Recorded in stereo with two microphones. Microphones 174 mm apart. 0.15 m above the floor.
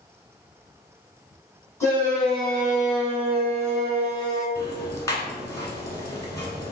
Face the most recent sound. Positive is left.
turn(degrees=20)  # may be behind; listen again after turning